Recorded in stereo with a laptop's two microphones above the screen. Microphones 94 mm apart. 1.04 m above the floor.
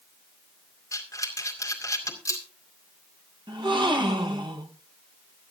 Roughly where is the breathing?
Left.